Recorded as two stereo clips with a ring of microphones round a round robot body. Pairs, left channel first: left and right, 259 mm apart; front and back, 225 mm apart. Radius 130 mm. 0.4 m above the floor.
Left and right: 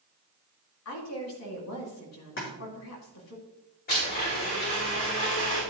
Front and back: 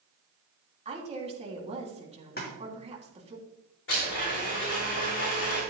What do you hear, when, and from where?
0.8 s a woman speaking: 120° left, 3 m
2.4 s a splash: 45° left, 4 m
3.9 s a blender: 35° left, 5.5 m